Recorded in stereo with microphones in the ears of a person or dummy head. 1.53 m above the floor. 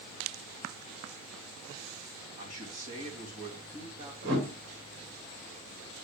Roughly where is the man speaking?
Right.